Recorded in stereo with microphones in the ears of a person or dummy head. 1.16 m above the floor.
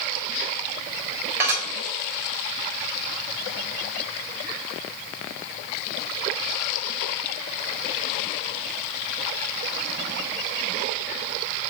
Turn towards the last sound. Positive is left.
turn(degrees=-15)  # may be behind; listen again after turning